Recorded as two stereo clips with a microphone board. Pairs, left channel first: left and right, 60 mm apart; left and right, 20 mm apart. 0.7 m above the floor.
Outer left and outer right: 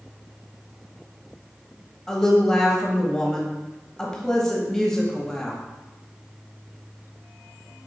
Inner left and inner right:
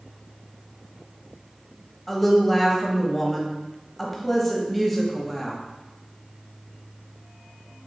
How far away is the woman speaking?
About 0.9 m.